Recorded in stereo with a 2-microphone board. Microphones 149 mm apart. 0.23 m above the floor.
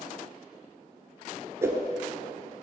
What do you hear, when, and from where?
1.6 s a whoosh: 20° right (ahead or behind), 1.0 m